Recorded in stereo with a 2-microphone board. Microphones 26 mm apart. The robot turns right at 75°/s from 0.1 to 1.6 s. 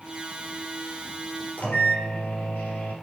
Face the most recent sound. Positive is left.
turn(degrees=65)  # may be behind; listen again after turning